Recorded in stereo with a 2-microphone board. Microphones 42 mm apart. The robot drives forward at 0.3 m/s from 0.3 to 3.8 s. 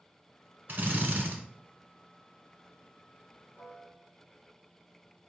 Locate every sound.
0.7 s a drill: 50° right (ahead or behind), 1.2 m
3.6 s a piano: 5° left (ahead or behind), 2.5 m